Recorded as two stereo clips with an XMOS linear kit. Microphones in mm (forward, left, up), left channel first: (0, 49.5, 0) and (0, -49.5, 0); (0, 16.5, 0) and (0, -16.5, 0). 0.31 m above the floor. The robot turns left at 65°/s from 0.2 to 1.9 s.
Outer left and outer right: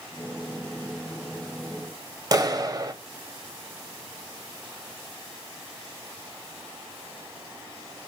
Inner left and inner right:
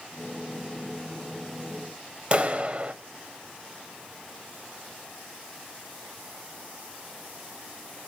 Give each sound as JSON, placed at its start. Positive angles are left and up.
{"t": 2.3, "sound": "a clap", "side_deg": -40, "distance_m": 0.9}